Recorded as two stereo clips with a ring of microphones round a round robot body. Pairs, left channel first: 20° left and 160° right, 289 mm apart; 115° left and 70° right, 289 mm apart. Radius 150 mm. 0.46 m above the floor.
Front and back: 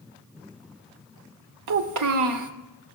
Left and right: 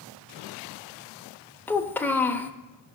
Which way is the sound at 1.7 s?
165° right.